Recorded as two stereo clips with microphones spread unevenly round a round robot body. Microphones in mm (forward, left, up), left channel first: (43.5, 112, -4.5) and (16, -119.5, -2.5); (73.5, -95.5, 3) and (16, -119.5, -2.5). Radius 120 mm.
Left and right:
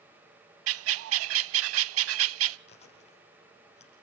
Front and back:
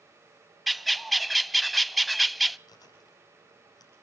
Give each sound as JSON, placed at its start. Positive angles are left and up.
{"t": 0.7, "sound": "a bird", "azimuth_deg": -70, "distance_m": 0.5}
{"t": 2.7, "sound": "chewing", "azimuth_deg": 20, "distance_m": 8.5}